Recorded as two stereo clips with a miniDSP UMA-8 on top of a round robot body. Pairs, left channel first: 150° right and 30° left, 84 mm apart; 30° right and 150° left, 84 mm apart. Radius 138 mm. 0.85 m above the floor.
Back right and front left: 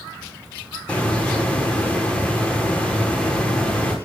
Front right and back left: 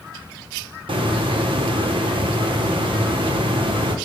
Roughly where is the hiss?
Behind left.